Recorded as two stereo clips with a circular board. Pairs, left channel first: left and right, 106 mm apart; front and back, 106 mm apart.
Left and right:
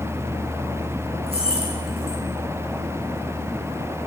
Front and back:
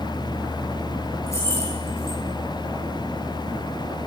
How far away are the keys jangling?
About 8.5 m.